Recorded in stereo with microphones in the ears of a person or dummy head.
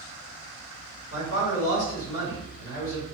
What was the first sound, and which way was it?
A man speaking, 70° left (ahead or behind).